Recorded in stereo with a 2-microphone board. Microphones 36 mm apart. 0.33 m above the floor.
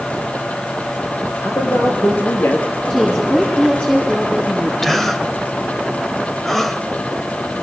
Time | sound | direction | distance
1.4 | a man speaking | 80° left | 6.5 m
2.9 | a woman speaking | 20° left (ahead or behind) | 10 m
4.8 | a gasp | 5° left (ahead or behind) | 1.5 m